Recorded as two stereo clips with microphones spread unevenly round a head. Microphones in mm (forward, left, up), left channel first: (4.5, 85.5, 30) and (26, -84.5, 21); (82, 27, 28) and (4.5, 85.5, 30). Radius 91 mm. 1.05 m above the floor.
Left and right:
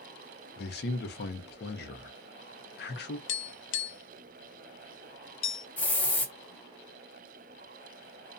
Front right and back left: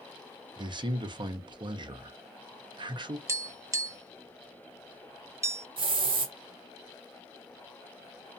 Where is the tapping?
80° left, 0.5 m.